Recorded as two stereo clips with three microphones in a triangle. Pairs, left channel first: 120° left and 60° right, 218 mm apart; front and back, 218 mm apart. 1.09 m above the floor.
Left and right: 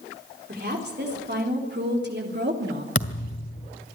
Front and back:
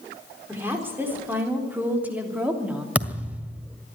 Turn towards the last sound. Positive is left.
turn(degrees=95)